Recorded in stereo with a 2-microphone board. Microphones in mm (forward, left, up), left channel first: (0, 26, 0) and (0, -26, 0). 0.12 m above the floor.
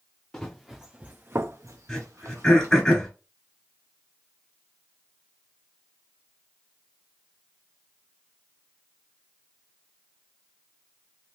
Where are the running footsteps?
10° left (ahead or behind), 0.8 m; by 2.9 s 75° right (ahead or behind), 1.3 m.